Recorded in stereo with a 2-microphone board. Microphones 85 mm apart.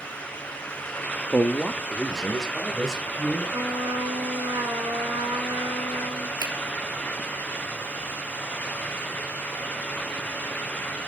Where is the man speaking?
20° left (ahead or behind), 0.6 m; by 3.4 s 5° right (ahead or behind), 2.5 m.